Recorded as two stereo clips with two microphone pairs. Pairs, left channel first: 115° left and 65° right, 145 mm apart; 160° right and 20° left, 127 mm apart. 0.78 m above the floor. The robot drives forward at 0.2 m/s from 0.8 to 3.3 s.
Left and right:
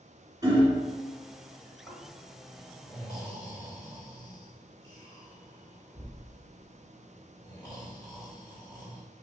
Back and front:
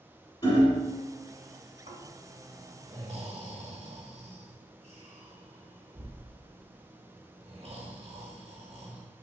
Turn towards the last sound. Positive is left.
turn(degrees=55)